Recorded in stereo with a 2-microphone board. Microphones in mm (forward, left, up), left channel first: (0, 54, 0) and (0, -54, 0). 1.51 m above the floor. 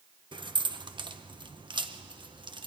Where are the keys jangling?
50° right (ahead or behind), 0.8 m.